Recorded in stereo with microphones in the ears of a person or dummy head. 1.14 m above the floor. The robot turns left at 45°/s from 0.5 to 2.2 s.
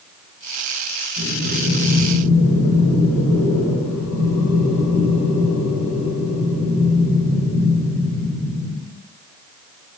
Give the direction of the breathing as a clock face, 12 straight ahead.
7 o'clock.